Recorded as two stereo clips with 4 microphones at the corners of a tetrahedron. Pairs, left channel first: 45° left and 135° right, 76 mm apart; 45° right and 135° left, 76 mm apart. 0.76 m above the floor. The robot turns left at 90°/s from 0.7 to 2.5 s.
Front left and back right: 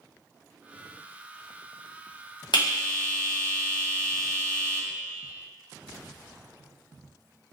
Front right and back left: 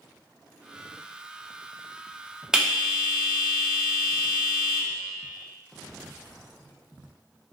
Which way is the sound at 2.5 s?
55° left.